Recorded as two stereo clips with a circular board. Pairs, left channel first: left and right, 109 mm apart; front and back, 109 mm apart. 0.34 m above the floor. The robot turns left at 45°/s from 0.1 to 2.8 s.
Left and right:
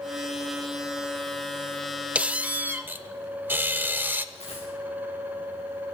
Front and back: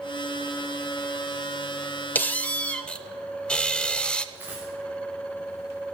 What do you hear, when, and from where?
2.1 s a squeak: 35° right, 0.5 m; by 4.2 s 65° right, 0.5 m
4.3 s a dropped coin: 105° left, 6.5 m